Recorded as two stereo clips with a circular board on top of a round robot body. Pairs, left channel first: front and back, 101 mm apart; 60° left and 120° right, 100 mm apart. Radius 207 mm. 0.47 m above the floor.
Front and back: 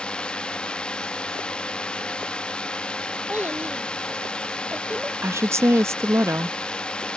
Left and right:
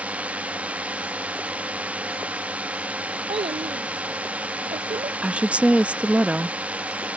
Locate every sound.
0.0 s a drone: 65° right
3.3 s a child speaking: 105° right
5.2 s a woman speaking: 175° left